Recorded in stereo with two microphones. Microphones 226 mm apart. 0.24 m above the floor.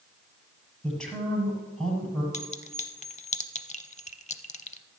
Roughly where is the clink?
Left.